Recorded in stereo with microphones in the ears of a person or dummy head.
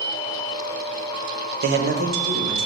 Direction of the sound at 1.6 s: 50° right (ahead or behind).